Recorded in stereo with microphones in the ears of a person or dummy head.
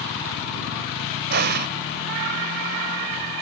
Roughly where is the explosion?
Right.